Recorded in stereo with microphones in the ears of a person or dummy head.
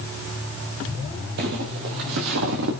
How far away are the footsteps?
About 1.9 m.